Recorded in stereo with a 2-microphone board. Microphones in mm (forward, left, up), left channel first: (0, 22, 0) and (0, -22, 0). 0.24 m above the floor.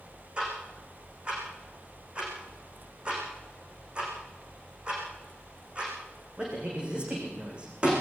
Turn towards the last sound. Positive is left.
turn(degrees=-25)  # may be behind; listen again after turning